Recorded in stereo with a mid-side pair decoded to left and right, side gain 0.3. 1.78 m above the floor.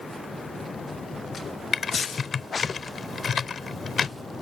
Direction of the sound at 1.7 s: 60° left.